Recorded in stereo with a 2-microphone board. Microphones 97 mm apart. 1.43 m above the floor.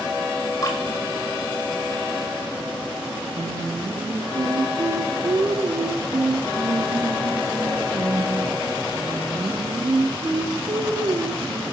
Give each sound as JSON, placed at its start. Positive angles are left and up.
{"t": 0.6, "sound": "dripping", "side_deg": 40, "distance_m": 3.5}
{"t": 3.4, "sound": "singing", "side_deg": -45, "distance_m": 2.0}